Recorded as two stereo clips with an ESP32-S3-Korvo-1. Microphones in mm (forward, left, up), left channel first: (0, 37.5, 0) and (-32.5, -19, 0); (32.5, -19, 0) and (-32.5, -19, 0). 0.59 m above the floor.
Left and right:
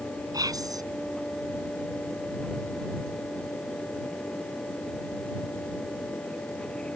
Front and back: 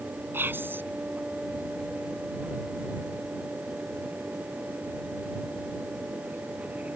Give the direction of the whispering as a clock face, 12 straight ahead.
4 o'clock.